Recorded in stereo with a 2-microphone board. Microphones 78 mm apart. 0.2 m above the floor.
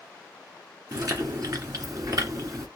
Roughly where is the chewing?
Right.